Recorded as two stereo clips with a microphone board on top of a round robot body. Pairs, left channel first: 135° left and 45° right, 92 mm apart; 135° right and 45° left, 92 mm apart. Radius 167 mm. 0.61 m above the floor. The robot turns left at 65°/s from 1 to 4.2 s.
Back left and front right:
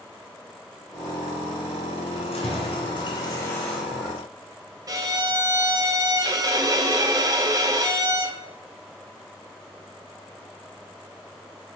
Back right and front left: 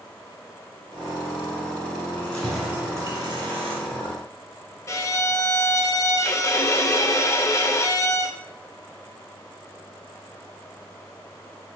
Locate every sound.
2.1 s keys jangling: 165° left, 2.5 m; by 4.1 s 35° left, 2.5 m
4.9 s a violin: 85° right, 1.0 m